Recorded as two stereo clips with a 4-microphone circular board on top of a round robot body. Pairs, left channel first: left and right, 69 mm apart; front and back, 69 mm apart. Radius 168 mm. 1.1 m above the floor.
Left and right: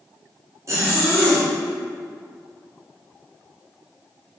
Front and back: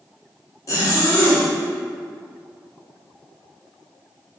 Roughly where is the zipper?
Ahead right.